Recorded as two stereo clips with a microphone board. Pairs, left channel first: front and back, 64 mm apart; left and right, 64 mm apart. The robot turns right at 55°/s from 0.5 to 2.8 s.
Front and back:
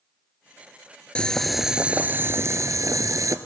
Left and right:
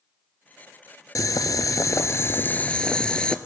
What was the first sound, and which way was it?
Boiling, 75° left.